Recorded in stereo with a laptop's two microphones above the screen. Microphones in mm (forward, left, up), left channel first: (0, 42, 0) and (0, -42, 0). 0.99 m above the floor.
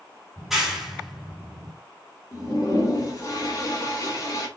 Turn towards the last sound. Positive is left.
turn(degrees=40)  # may be behind; listen again after turning